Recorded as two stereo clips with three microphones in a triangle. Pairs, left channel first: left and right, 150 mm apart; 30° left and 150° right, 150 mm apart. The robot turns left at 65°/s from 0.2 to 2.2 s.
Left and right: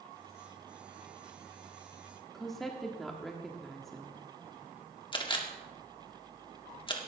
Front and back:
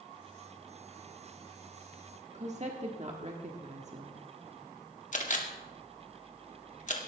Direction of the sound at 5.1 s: 40° left.